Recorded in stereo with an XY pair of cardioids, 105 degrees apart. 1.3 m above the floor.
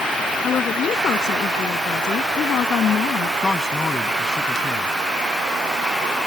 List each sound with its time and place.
0.4 s a woman speaking: 55° left; by 3.3 s 60° left
3.4 s a man speaking: 25° left